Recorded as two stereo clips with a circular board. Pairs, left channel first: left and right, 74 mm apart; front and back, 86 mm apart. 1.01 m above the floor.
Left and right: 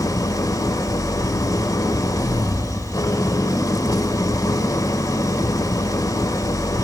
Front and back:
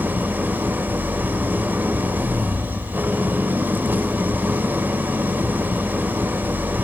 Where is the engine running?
115° left, 1.3 m.